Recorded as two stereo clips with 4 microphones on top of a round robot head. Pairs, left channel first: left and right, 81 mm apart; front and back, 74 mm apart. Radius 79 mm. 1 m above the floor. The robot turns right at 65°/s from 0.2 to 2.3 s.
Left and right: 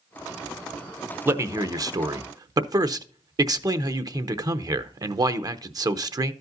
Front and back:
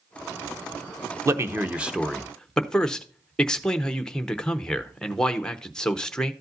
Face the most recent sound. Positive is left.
turn(degrees=-75)